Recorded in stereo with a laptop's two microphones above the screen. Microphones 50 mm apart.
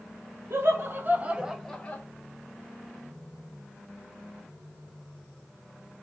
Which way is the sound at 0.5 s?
60° right (ahead or behind).